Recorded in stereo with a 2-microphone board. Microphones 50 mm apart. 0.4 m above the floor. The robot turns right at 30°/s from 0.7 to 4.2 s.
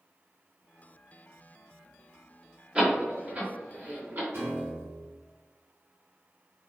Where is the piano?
55° right (ahead or behind), 1.2 m.